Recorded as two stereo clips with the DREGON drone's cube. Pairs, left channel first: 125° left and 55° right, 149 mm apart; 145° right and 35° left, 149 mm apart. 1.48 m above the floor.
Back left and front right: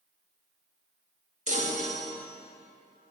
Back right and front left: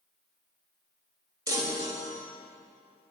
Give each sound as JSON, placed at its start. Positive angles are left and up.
{"t": 1.5, "sound": "a chime", "azimuth_deg": -30, "distance_m": 1.6}